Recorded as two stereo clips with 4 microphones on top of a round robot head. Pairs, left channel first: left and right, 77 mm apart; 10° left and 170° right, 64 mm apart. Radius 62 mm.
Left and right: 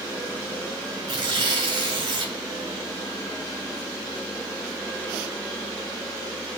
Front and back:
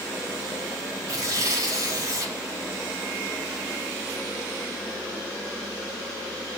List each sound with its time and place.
1.1 s tearing paper: 125° right, 6.5 m